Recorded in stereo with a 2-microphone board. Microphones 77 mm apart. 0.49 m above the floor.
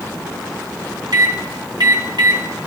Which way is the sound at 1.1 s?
65° right (ahead or behind).